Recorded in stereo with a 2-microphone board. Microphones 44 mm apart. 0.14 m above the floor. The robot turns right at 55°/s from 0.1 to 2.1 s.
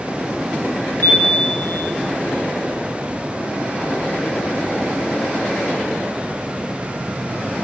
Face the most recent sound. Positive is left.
turn(degrees=145)